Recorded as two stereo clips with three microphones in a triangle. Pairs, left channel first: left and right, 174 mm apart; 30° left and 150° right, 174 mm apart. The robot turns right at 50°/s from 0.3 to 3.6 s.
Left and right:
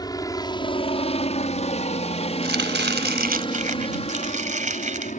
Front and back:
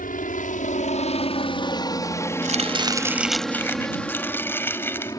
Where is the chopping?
105° right; by 5.2 s 45° right.